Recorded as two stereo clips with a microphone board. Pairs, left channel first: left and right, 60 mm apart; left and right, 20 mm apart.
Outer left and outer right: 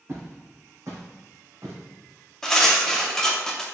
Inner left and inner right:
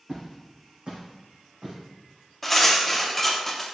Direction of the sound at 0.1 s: 50° right (ahead or behind).